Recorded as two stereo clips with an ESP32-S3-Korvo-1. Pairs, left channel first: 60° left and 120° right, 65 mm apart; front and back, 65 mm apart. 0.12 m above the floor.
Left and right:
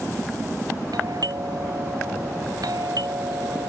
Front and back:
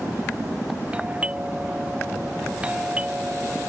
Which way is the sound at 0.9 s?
110° right.